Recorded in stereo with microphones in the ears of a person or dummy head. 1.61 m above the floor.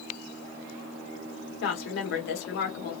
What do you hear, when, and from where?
1.6 s a woman speaking: 65° left (ahead or behind), 1.2 m